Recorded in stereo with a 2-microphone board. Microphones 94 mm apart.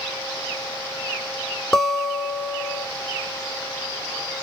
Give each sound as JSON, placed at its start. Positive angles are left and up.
{"t": 1.7, "sound": "a guitar", "side_deg": 5, "distance_m": 1.0}